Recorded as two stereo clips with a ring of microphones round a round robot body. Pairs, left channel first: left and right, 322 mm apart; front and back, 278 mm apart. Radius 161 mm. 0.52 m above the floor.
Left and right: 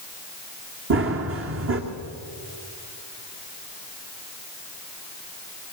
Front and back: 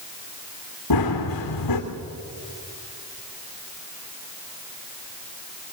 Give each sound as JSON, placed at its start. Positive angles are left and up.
{"t": 0.9, "sound": "running footsteps", "azimuth_deg": -35, "distance_m": 2.5}